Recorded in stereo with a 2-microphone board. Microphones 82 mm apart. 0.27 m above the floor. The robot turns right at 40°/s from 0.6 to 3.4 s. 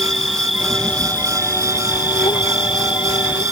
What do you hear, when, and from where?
0.0 s an insect: straight ahead; by 3.5 s 115° left